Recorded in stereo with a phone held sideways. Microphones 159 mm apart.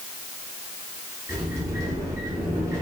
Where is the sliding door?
20° right (ahead or behind), 0.8 m.